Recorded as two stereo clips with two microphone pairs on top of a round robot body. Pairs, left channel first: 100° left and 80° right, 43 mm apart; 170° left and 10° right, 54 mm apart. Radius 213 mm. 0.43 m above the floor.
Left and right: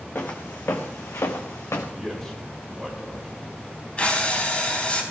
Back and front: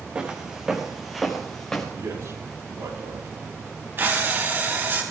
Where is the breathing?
40° left, 4 m.